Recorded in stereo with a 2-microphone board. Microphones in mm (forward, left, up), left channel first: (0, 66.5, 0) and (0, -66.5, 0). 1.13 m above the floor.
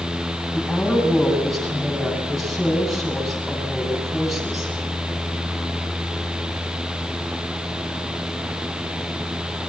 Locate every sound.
0.5 s a woman speaking: centre (ahead or behind), 10 m